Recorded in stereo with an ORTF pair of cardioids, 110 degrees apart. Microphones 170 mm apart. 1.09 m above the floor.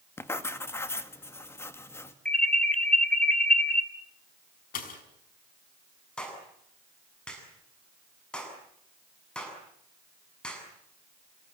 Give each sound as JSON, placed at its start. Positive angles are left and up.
{"t": 0.2, "sound": "writing", "azimuth_deg": 15, "distance_m": 1.9}
{"t": 2.2, "sound": "an alarm", "azimuth_deg": 5, "distance_m": 3.0}
{"t": 4.7, "sound": "a pop", "azimuth_deg": 55, "distance_m": 5.5}
{"t": 6.2, "sound": "a clap", "azimuth_deg": 5, "distance_m": 7.5}